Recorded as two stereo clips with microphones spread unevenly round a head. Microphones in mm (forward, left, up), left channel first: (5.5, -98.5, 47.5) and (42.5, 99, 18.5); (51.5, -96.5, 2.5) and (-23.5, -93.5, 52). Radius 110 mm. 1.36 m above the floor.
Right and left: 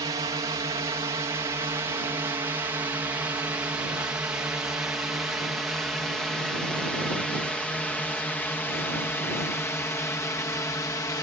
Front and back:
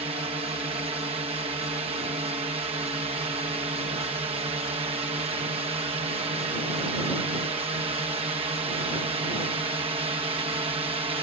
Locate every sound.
0.0 s a drone: 145° left; by 11.2 s straight behind